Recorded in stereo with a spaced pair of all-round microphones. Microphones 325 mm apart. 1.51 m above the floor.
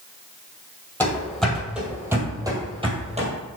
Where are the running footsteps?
5° left (ahead or behind), 2.5 m; by 3.3 s 20° right (ahead or behind), 2.5 m.